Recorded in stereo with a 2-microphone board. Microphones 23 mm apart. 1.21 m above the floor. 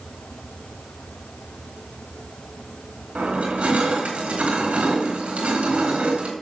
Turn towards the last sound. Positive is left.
turn(degrees=-80)